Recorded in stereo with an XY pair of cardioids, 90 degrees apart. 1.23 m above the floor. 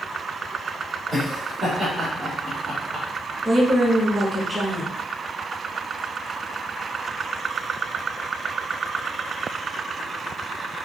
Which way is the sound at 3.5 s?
30° right.